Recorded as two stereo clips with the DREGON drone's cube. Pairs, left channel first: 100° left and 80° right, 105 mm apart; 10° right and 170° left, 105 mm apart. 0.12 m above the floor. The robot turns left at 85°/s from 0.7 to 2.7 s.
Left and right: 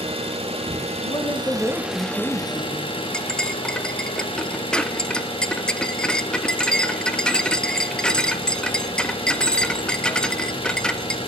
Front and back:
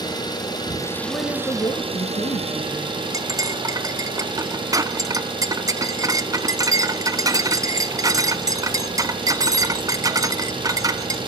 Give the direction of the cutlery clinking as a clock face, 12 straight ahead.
6 o'clock.